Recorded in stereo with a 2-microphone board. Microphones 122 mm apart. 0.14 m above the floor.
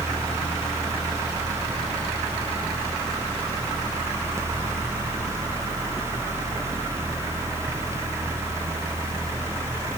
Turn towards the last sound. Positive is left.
No sound to turn to.